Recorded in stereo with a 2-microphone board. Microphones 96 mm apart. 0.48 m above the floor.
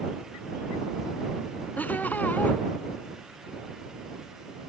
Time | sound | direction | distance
1.8 | laughter | 20° left (ahead or behind) | ?